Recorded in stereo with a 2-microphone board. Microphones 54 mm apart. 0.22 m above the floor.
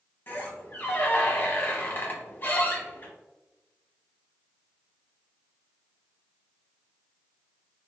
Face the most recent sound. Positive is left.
turn(degrees=35)  # may be behind; listen again after turning